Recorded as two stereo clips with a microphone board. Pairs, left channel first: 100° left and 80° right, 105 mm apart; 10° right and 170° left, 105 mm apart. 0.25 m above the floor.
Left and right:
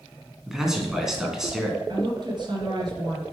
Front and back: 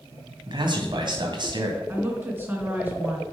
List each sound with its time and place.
0.5 s a man speaking: 165° right, 2.5 m
1.9 s a woman speaking: 120° right, 3 m